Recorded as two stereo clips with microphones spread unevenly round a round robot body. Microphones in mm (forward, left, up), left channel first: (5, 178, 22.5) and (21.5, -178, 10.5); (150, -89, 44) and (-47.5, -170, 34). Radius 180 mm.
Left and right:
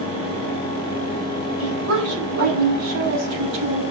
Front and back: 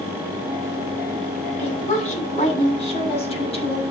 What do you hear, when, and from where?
1.6 s a woman speaking: 35° right, 8 m; by 3.8 s 40° right, 5 m